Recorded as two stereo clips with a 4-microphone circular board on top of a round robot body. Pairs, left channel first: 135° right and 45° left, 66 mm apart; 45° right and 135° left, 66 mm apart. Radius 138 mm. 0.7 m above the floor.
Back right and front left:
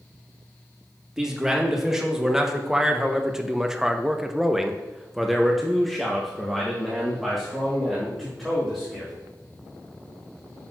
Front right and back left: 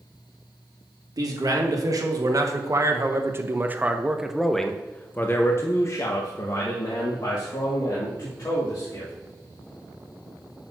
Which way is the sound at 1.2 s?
125° left.